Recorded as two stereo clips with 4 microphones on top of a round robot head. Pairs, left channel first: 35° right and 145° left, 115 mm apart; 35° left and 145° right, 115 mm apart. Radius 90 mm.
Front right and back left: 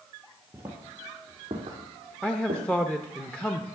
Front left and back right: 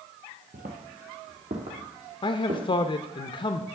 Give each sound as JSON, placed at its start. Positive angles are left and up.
{"t": 0.5, "sound": "footsteps", "azimuth_deg": -140, "distance_m": 1.4}
{"t": 2.2, "sound": "a man speaking", "azimuth_deg": 45, "distance_m": 0.7}